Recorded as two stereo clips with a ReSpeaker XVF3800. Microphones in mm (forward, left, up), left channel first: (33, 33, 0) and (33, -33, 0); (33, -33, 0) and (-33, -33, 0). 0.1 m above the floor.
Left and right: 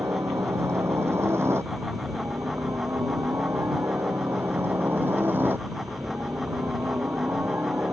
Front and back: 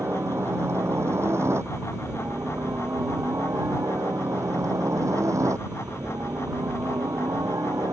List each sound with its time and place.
0.0 s a helicopter: 135° right; by 7.9 s 150° right